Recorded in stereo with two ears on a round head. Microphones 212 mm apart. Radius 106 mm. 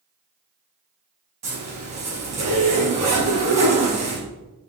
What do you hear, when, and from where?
1.4 s a zipper: 30° right (ahead or behind), 5 m